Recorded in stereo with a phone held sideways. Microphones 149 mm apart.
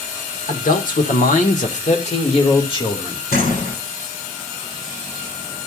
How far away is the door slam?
About 9 m.